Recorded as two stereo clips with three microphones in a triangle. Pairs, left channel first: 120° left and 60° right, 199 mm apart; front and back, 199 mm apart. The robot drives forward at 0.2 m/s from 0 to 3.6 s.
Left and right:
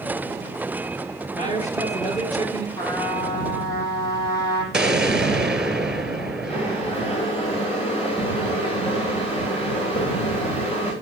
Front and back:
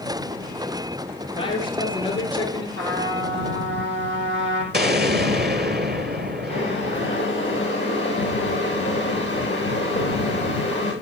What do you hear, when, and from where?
1.3 s a man speaking: 65° left, 5 m
2.8 s a trumpet: 170° right, 8 m
4.7 s an explosion: 145° right, 1.9 m
6.5 s boiling: 60° left, 8 m